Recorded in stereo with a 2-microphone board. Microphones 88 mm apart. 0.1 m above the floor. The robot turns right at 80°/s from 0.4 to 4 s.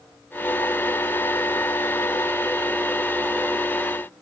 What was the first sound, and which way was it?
Only background noise.